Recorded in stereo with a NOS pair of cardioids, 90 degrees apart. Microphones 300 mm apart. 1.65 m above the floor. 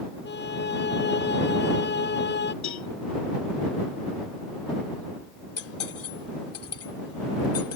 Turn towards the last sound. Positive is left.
turn(degrees=50)